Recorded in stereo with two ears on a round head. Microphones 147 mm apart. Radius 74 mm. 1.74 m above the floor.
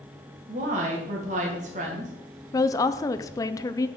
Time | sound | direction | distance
0.5 | a woman speaking | 45° right (ahead or behind) | 2.5 m
2.5 | a woman speaking | 20° left (ahead or behind) | 0.5 m